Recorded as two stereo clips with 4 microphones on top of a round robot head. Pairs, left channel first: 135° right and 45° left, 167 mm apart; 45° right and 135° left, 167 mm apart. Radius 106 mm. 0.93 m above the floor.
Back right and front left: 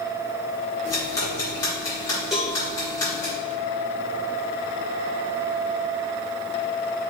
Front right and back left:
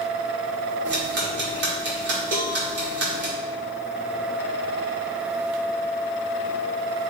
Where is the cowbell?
135° left, 1.2 m.